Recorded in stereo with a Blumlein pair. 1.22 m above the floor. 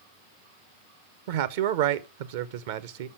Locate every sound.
1.3 s a man speaking: 50° right, 0.8 m